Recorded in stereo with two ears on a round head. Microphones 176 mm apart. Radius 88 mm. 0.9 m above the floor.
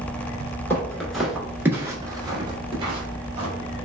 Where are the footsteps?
10° left (ahead or behind), 0.9 m; by 3.5 s 30° right (ahead or behind), 1.4 m.